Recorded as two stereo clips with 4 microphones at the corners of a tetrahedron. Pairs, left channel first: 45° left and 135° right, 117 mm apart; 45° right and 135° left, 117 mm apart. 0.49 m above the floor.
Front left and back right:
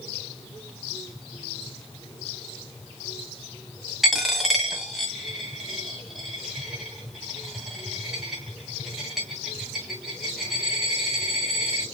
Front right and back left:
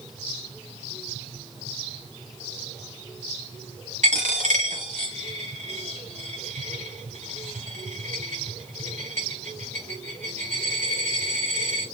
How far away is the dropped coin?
About 1.5 m.